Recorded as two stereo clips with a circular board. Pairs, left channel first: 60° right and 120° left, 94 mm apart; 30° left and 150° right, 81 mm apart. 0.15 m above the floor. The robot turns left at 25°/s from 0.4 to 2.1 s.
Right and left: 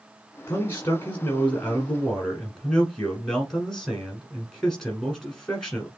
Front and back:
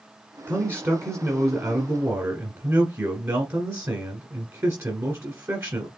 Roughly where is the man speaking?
Right.